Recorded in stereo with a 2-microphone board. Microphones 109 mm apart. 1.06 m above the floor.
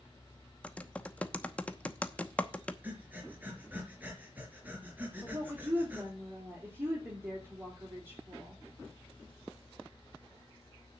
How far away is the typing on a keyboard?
About 0.9 m.